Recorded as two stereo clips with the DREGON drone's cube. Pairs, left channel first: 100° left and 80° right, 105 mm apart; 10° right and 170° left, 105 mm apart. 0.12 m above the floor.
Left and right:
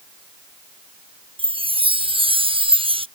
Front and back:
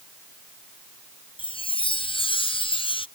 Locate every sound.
1.4 s a chime: 45° right